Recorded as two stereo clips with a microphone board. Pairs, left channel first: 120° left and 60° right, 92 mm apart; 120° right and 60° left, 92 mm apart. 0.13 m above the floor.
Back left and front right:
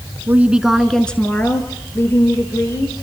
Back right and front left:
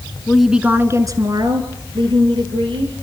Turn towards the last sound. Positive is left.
turn(degrees=60)